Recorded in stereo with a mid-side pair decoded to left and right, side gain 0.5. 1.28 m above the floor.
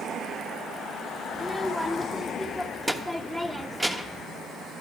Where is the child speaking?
5° right, 1.2 m.